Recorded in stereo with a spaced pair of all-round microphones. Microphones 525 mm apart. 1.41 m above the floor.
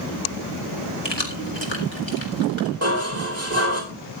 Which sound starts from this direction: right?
Dishes clattering, at 2.8 s.